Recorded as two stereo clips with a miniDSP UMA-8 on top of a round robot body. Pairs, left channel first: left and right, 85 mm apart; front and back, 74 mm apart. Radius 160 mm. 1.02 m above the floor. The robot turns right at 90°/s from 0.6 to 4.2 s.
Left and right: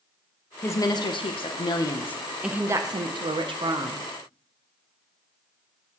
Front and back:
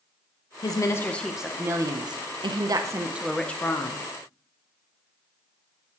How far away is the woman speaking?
About 0.7 m.